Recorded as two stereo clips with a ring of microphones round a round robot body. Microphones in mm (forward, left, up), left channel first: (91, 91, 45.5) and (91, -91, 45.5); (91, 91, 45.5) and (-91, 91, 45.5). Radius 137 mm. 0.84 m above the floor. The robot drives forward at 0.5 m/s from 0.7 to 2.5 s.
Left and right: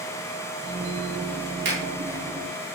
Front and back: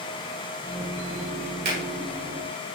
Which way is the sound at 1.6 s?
135° right.